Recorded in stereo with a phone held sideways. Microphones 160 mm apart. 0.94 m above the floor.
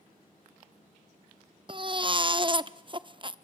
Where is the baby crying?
35° right (ahead or behind), 0.7 m.